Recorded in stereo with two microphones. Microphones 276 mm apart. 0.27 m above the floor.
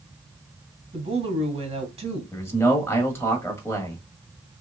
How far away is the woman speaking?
About 2 m.